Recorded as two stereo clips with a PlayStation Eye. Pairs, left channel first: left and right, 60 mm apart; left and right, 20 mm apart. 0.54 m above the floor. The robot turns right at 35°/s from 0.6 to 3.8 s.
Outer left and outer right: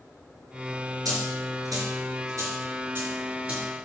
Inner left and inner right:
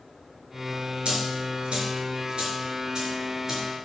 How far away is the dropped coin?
About 4.5 m.